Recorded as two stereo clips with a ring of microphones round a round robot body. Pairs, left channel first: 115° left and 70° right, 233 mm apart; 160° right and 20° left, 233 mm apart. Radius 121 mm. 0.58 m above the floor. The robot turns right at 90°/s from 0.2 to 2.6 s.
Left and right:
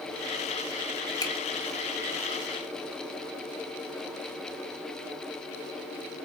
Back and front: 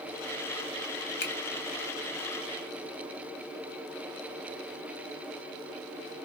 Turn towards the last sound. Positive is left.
turn(degrees=-50)